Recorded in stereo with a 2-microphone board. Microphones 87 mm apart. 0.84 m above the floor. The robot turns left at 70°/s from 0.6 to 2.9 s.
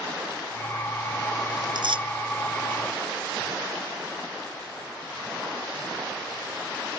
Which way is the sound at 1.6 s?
50° right (ahead or behind).